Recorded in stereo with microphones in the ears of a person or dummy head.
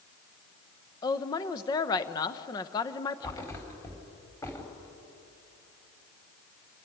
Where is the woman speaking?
20° left (ahead or behind), 0.8 m.